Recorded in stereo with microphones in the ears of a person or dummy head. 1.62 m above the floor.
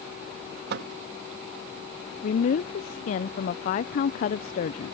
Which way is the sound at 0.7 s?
60° right (ahead or behind).